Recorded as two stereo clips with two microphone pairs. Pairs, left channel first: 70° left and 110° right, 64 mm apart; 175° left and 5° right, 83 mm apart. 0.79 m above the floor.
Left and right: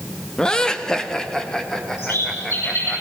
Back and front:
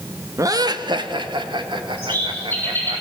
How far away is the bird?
About 8.5 m.